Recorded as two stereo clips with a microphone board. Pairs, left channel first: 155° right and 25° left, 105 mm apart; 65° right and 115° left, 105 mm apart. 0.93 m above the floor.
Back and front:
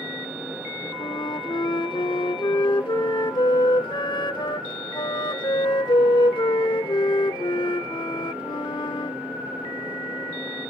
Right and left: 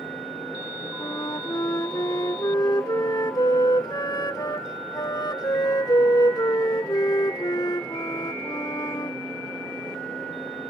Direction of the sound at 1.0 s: 120° right.